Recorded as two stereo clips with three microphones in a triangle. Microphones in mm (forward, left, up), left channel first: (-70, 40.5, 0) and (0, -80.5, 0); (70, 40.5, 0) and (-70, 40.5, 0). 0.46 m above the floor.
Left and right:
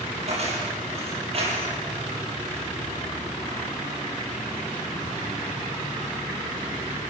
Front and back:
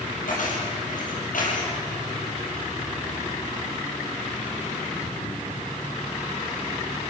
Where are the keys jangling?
20° right, 8 m; by 1.7 s 15° right, 7.5 m.